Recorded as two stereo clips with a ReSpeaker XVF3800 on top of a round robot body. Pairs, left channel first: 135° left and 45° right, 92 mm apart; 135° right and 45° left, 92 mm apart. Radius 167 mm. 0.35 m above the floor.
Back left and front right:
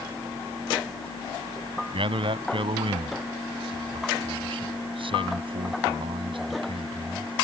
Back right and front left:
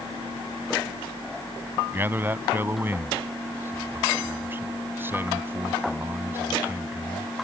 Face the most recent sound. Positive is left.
turn(degrees=-20)